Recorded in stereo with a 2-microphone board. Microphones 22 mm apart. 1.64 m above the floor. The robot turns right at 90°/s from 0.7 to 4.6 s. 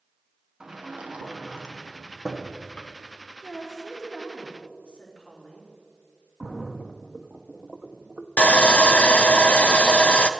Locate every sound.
0.6 s a sliding door: 55° right (ahead or behind), 1.3 m; by 2.9 s 70° left (ahead or behind), 1.3 m
3.4 s a woman speaking: 10° left, 4 m; by 5.7 s 115° left, 4 m
6.4 s a splash: 35° right (ahead or behind), 0.7 m
8.4 s sawing: 85° left, 0.6 m